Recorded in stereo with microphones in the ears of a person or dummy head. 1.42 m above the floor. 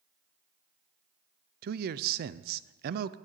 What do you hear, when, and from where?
1.6 s a man speaking: 50° right (ahead or behind), 0.5 m